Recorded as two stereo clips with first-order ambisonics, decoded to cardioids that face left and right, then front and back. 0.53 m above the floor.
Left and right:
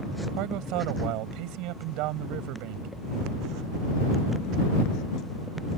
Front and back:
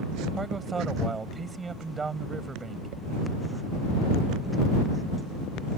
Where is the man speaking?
105° right.